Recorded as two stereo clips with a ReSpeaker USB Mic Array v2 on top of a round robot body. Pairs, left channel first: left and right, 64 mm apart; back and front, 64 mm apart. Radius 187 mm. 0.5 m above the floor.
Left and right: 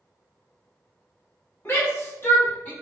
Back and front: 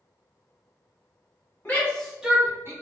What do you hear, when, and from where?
1.6 s a shout: 130° left, 1.5 m; by 2.7 s 25° left, 1.5 m